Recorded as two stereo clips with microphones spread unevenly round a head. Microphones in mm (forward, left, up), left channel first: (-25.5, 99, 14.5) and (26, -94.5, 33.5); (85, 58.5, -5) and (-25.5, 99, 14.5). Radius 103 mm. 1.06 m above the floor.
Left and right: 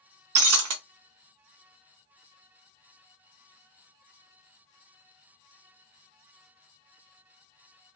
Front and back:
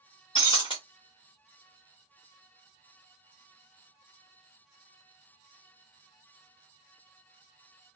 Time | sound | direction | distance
0.3 | breaking glass | 90° right | 0.7 m